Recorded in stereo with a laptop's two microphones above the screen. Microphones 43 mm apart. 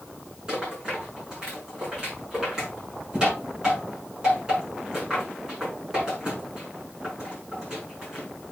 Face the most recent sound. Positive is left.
turn(degrees=-15)  # may be behind; listen again after turning